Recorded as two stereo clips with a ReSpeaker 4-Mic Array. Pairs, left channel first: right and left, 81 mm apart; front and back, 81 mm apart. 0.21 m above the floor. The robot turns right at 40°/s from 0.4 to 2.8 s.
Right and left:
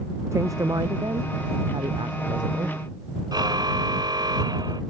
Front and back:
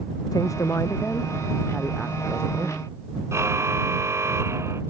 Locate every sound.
0.3 s a woman speaking: 40° left; by 2.8 s 135° left
3.3 s a car horn: 125° left